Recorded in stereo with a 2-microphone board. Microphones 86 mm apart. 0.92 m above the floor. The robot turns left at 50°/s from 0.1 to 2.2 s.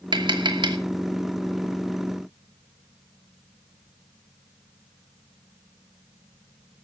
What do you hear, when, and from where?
0.1 s tapping: 65° right (ahead or behind), 1.8 m; by 0.8 s 55° right (ahead or behind), 1.8 m